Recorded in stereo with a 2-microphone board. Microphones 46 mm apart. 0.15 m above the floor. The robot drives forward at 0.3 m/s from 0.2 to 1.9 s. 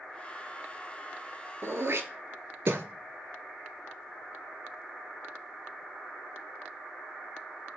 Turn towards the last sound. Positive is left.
turn(degrees=-70)  # may be behind; listen again after turning